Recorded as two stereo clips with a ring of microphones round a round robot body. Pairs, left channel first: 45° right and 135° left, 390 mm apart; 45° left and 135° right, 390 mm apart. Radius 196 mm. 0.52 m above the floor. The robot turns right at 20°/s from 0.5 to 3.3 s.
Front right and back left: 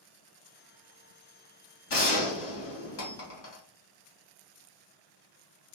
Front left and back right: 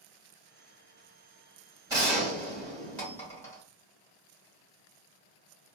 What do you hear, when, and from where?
1.9 s a gunshot: 60° right, 1.5 m; by 3.6 s 35° right, 1.5 m